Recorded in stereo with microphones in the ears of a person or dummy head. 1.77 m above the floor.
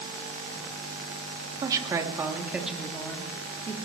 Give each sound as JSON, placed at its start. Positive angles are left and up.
{"t": 1.6, "sound": "a woman speaking", "side_deg": -25, "distance_m": 3.0}